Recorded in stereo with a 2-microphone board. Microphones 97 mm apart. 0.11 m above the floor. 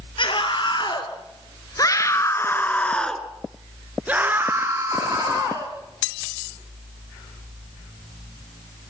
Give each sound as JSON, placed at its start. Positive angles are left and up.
{"t": 0.2, "sound": "a scream", "side_deg": 60, "distance_m": 3.0}